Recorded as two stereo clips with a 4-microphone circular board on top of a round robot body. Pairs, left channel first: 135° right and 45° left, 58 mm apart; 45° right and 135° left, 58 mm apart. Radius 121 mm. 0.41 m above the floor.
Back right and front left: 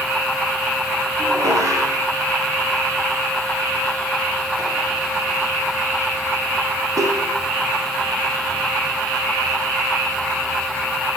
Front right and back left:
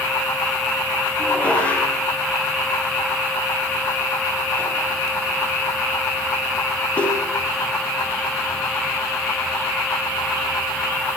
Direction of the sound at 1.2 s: 25° left.